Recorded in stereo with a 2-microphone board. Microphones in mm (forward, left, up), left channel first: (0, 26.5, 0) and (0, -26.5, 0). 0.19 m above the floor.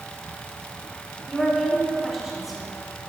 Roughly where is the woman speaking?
Centre.